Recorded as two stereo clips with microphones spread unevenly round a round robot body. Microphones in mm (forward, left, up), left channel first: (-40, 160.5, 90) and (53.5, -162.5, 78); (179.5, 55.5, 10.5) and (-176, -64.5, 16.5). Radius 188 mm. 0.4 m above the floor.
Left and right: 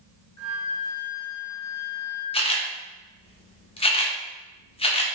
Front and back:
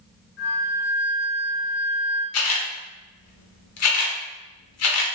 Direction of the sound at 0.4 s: 75° left.